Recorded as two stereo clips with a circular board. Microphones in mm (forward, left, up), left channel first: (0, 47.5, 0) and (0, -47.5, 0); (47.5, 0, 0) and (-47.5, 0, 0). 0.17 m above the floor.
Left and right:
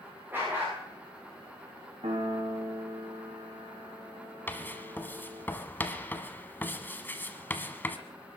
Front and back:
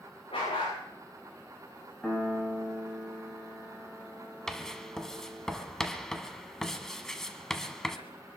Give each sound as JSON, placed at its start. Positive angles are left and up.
{"t": 0.3, "sound": "a dog barking", "azimuth_deg": -20, "distance_m": 8.5}
{"t": 2.0, "sound": "a piano", "azimuth_deg": -85, "distance_m": 4.5}
{"t": 4.5, "sound": "writing", "azimuth_deg": 75, "distance_m": 1.2}